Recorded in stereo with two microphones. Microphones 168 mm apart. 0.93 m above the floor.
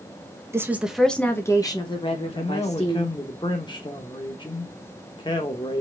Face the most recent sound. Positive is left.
turn(degrees=25)  # may be behind; listen again after turning